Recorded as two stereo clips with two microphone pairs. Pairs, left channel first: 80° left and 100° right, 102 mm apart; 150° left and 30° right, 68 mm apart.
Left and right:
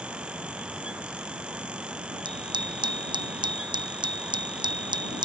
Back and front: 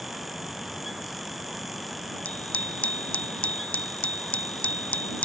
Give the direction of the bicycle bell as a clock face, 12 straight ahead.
5 o'clock.